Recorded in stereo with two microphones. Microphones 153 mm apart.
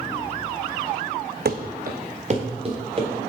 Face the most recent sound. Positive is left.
turn(degrees=-30)  # may be behind; listen again after turning